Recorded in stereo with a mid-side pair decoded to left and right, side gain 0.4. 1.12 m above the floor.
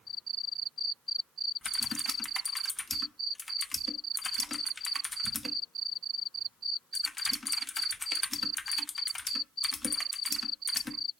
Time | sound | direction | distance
1.6 | typing on a keyboard | 25° left | 1.0 m